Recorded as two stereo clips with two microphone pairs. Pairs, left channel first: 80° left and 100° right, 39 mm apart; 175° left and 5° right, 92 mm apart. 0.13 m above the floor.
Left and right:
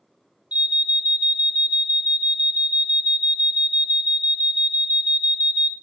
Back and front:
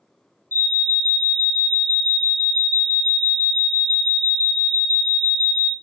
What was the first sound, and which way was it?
An alarm, 135° right.